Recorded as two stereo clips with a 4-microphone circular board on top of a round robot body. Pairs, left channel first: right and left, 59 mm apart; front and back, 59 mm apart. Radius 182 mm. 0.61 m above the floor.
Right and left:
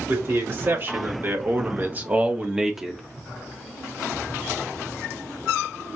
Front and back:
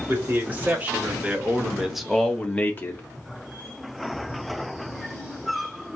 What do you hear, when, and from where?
0.1 s a man speaking: 130° left, 2 m; by 3.0 s straight ahead, 1.2 m